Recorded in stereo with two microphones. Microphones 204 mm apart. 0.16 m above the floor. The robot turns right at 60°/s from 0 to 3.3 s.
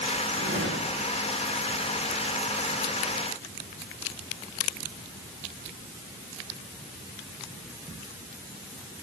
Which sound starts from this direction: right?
A whoosh, at 0.4 s.